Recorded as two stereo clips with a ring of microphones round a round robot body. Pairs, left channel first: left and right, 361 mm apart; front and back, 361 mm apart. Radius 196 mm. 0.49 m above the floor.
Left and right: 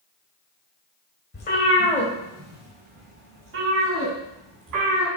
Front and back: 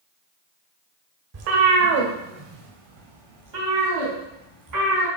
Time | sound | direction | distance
1.3 | a cat meowing | 155° left | 1.3 m